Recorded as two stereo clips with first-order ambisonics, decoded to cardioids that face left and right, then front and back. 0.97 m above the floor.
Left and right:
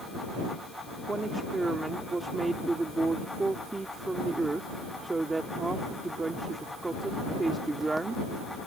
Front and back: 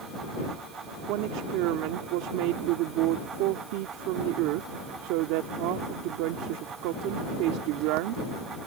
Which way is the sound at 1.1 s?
170° right.